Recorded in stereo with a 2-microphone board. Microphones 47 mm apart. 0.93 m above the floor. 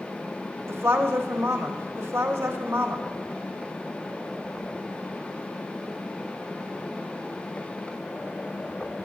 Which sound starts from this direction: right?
A woman speaking, at 0.7 s.